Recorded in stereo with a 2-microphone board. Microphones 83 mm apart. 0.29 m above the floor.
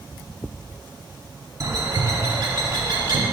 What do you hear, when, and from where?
1.6 s a bird: 45° right (ahead or behind), 0.8 m